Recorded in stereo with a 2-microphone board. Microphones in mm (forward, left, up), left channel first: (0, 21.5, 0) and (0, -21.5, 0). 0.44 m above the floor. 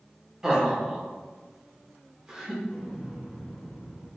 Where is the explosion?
10° right (ahead or behind), 1.6 m.